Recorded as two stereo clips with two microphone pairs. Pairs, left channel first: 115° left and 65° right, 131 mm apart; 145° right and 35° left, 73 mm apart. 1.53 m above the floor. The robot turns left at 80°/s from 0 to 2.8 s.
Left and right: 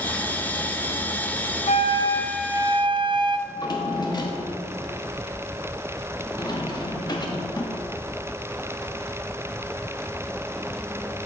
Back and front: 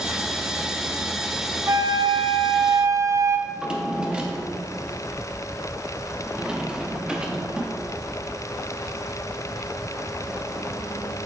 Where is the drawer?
100° left, 1.1 m.